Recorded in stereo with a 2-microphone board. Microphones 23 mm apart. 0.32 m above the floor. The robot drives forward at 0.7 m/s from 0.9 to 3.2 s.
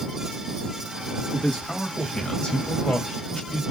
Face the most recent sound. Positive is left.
turn(degrees=40)  # may be behind; listen again after turning